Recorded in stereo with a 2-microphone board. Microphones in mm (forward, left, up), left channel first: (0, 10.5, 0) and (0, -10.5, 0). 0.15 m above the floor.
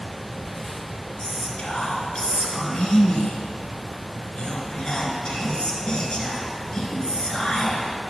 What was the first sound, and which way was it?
Whispering, 40° left (ahead or behind).